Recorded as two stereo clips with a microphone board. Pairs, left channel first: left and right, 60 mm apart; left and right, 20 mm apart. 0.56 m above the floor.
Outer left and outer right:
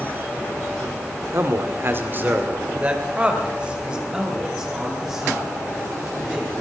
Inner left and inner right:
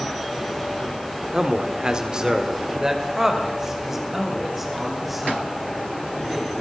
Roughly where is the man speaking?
Right.